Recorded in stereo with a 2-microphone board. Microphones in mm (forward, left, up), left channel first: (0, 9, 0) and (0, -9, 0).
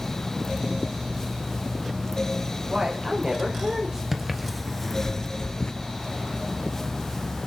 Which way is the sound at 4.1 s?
15° right (ahead or behind).